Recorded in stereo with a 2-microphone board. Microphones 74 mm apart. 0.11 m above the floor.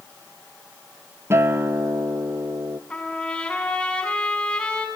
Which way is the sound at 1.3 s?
35° right (ahead or behind).